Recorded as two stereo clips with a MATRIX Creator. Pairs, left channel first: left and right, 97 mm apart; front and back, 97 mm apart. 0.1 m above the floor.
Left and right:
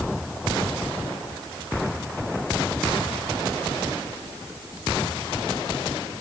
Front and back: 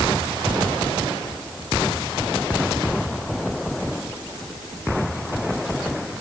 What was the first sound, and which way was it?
Only background noise.